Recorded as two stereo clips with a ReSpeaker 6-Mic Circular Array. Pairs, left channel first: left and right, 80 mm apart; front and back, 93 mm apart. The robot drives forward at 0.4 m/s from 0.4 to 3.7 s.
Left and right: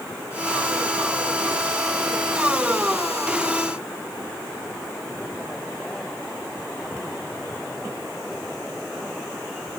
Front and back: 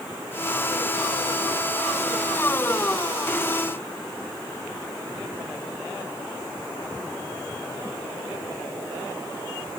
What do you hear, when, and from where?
Only background noise.